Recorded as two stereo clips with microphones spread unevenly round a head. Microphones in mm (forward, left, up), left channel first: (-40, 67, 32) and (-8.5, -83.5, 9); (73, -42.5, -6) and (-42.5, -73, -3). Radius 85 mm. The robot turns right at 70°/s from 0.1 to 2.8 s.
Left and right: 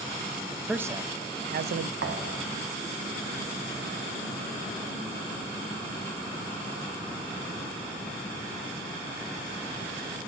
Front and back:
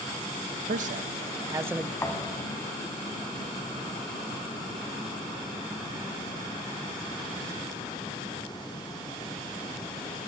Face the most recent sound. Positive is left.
turn(degrees=5)